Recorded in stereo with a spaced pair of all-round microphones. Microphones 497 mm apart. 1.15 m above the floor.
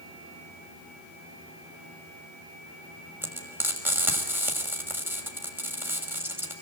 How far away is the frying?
About 6 m.